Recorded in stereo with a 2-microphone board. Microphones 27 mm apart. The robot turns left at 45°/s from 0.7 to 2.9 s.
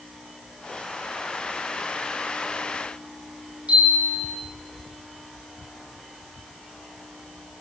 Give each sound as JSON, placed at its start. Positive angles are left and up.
{"t": 3.7, "sound": "a chime", "side_deg": -60, "distance_m": 5.5}